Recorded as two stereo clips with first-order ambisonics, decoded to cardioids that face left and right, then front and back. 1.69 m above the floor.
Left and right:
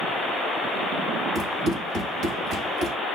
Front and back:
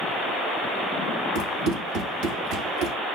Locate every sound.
1.4 s running footsteps: 160° right, 3.5 m; by 3.0 s 145° right, 3.5 m